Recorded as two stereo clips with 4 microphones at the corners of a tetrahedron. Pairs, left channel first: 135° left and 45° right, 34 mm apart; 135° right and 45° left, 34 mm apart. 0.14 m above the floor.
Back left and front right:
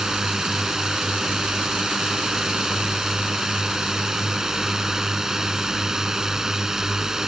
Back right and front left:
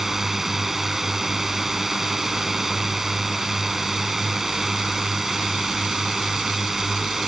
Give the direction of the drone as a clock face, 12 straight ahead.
12 o'clock.